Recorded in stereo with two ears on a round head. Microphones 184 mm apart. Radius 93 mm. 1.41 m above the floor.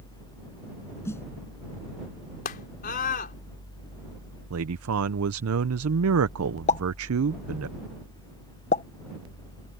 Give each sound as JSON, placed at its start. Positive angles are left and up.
{"t": 1.1, "sound": "a snare drum", "side_deg": 15}
{"t": 2.5, "sound": "a scream", "side_deg": 45}
{"t": 4.5, "sound": "a man speaking", "side_deg": -85}
{"t": 6.7, "sound": "a pop", "side_deg": 35}